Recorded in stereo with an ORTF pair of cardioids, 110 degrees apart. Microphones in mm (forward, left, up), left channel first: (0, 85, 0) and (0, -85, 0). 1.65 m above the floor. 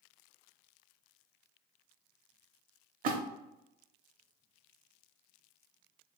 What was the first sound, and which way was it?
A splash, 60° right.